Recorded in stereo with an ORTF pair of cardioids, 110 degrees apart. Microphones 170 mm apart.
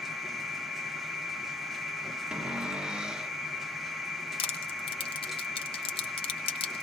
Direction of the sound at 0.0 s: Straight ahead.